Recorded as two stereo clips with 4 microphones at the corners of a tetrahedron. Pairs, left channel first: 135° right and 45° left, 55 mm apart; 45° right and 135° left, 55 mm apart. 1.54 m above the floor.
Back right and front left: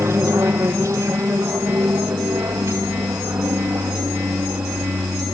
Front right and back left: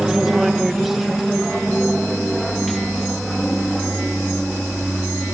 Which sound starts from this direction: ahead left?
An aircraft, at 0.0 s.